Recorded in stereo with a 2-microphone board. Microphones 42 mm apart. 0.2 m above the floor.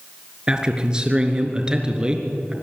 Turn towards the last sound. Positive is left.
turn(degrees=-20)  # may be behind; listen again after turning